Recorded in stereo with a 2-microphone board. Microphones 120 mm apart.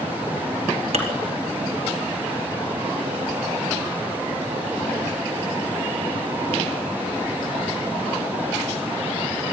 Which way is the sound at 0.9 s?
60° right (ahead or behind).